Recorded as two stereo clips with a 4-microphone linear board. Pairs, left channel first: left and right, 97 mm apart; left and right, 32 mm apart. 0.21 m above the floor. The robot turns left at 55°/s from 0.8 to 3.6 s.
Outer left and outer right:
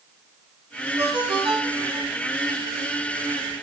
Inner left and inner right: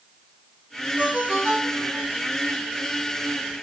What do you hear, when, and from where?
1.0 s a ringtone: 40° right, 3 m; by 2.1 s 100° right, 3 m